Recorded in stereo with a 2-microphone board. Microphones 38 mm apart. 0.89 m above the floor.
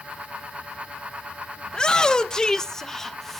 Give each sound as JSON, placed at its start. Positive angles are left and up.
{"t": 1.7, "sound": "a shout", "side_deg": 20, "distance_m": 1.0}